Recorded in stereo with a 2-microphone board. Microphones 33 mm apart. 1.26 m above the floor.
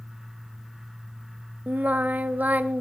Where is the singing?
55° right (ahead or behind), 0.7 m.